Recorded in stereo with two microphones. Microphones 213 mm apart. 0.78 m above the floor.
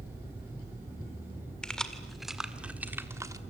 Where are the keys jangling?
5° left (ahead or behind), 1.9 m; by 3.4 s 15° right (ahead or behind), 1.2 m.